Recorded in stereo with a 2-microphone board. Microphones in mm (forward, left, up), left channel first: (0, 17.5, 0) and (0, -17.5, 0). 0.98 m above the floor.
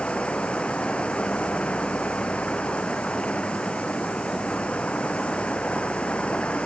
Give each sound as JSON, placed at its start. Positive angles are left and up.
{"t": 0.0, "sound": "running water", "side_deg": 35}